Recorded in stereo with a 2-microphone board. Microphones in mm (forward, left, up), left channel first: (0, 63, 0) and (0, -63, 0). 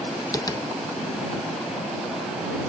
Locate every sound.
0.3 s tapping: 30° left (ahead or behind)